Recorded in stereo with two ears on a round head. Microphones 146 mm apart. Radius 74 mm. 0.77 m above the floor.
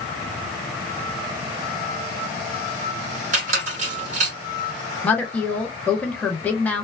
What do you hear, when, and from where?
3.3 s a squeak: 45° right (ahead or behind), 1.6 m
5.0 s a woman speaking: 10° left (ahead or behind), 0.9 m